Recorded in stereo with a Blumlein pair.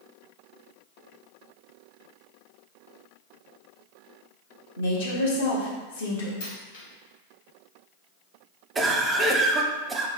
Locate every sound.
4.8 s a woman speaking: 60° left, 1.3 m
6.4 s a dropped coin: 55° left, 1.6 m
8.8 s a cough: 15° right, 0.6 m